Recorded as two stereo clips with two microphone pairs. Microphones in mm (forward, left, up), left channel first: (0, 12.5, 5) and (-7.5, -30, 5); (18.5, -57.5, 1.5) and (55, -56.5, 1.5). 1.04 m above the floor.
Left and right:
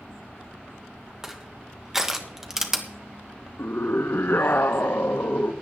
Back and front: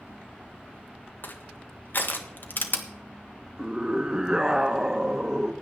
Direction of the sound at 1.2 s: 175° right.